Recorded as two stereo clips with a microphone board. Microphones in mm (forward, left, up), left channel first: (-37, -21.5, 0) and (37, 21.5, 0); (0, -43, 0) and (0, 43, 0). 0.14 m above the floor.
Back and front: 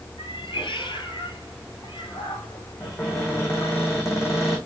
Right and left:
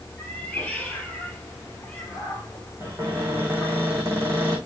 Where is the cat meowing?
165° right, 2.5 m.